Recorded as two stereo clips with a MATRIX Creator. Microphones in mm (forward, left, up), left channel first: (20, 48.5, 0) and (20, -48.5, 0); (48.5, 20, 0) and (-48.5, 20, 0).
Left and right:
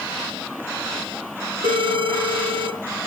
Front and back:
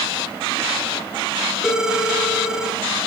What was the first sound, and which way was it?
A phone ringing, 95° right.